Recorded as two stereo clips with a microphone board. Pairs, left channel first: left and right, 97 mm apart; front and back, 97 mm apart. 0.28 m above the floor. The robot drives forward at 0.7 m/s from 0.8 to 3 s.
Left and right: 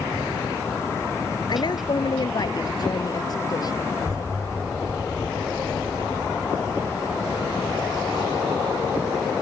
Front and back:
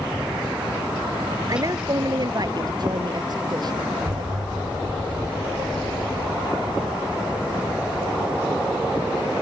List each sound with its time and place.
1.5 s a woman speaking: 130° left; by 5.0 s 135° left
4.0 s an explosion: 145° right